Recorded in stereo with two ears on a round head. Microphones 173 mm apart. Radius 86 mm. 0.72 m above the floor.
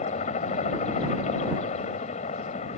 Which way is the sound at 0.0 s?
35° left (ahead or behind).